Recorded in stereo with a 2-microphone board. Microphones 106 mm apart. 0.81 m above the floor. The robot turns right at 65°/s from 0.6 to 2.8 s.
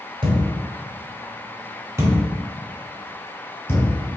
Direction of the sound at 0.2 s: 55° right (ahead or behind).